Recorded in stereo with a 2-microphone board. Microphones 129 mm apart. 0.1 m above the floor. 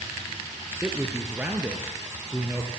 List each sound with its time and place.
0.8 s a man speaking: 15° right (ahead or behind), 2.5 m